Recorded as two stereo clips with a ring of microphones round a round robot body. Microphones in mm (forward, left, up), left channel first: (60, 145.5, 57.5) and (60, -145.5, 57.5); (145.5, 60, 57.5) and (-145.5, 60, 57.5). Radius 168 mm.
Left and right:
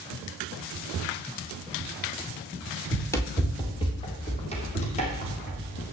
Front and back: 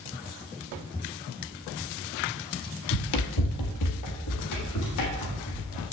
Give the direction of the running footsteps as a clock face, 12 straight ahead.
12 o'clock.